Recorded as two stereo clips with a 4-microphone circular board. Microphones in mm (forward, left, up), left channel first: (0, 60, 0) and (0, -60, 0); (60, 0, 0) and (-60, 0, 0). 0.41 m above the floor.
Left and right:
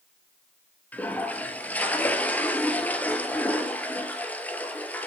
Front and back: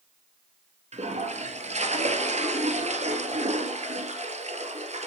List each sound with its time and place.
0.9 s a toilet flushing: 165° left, 1.2 m